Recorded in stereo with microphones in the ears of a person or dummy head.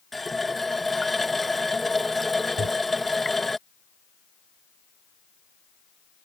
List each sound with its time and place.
0.1 s a running tap: centre (ahead or behind)
2.6 s a microwave: 90° right